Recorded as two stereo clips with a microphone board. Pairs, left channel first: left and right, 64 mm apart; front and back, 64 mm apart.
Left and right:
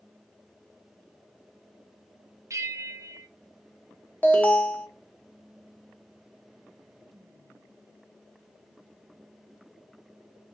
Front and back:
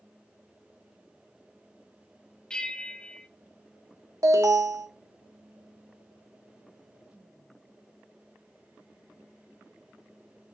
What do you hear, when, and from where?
2.5 s a bell: 75° right, 0.6 m
4.2 s an alarm: 155° left, 0.9 m